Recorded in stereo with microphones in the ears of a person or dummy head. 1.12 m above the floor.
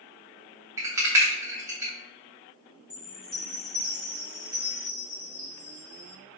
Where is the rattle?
10° right (ahead or behind), 0.7 m.